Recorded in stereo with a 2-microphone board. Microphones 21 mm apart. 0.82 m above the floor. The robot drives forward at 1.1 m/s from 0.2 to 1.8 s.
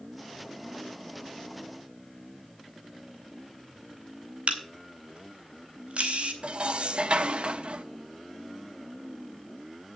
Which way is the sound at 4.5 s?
85° right.